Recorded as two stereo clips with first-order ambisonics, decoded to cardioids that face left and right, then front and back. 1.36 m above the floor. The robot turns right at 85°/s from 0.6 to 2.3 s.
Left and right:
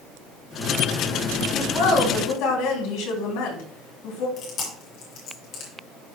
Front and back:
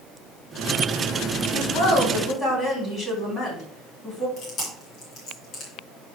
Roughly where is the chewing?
Ahead left.